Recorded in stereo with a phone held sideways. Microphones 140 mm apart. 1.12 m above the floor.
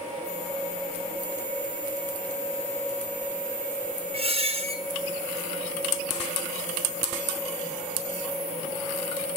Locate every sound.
4.1 s a squeak: 45° right (ahead or behind), 0.9 m